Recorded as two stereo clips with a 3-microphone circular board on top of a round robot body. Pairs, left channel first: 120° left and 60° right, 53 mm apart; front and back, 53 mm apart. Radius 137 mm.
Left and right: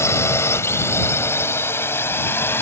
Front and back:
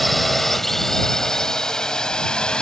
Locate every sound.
0.0 s a drone: 90° left; by 2.6 s 75° left